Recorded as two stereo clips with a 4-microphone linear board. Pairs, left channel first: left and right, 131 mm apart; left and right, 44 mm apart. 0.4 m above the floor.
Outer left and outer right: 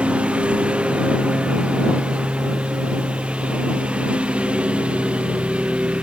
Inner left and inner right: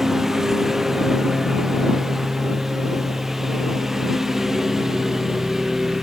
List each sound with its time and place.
0.0 s a lawn mower: 10° right (ahead or behind)